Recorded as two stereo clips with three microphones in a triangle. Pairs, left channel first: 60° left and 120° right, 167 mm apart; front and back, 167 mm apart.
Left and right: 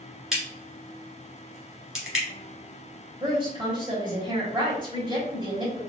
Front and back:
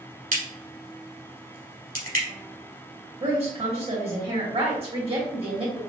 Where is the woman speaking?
160° right, 1.8 m.